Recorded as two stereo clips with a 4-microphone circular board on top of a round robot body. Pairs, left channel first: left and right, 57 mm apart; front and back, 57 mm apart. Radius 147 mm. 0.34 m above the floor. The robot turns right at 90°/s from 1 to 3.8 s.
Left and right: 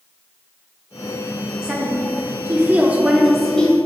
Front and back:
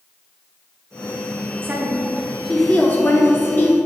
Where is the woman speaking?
155° right, 1.1 m; by 3.8 s 35° left, 1.1 m.